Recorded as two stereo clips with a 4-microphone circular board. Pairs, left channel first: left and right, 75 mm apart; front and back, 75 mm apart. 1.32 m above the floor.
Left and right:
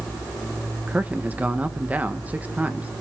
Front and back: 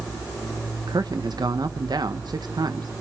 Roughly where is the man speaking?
Behind.